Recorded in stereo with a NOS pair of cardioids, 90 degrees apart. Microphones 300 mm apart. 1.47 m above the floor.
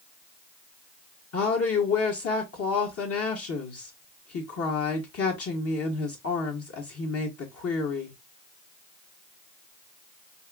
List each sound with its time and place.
1.3 s a woman speaking: 50° left, 1.1 m